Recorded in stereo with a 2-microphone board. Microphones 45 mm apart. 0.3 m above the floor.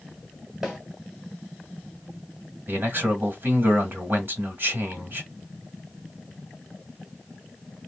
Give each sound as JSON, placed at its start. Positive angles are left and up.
{"t": 0.6, "sound": "a snare drum", "side_deg": -15, "distance_m": 1.1}
{"t": 2.7, "sound": "a man speaking", "side_deg": -50, "distance_m": 1.3}